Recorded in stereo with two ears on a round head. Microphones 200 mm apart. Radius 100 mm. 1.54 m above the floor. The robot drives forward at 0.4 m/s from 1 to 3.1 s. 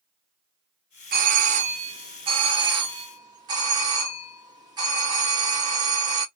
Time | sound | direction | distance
1.1 | a doorbell | 40° right (ahead or behind) | 0.7 m